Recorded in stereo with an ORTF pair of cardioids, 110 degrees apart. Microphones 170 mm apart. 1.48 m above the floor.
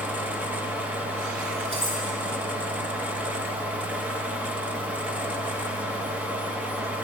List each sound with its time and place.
0.0 s a fan: 10° right, 1.5 m
1.7 s cutlery clinking: 35° right, 6 m